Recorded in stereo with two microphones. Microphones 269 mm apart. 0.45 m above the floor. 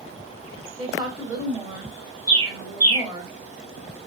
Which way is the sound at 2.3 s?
60° right (ahead or behind).